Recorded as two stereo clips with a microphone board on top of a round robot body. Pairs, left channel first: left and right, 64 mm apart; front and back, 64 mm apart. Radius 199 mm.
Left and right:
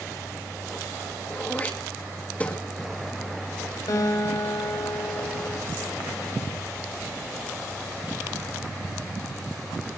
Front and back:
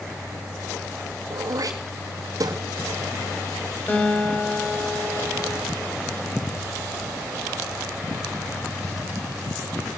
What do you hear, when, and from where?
1.3 s throat clearing: 160° left, 2.5 m
3.9 s a guitar: 65° left, 4.5 m